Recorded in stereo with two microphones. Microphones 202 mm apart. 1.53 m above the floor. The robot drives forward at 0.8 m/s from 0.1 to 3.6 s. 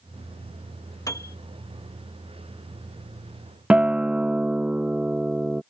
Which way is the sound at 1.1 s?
15° left (ahead or behind).